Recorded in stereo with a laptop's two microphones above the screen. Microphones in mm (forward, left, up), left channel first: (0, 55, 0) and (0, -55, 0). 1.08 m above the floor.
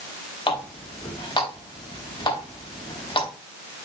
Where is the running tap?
50° left (ahead or behind), 4 m.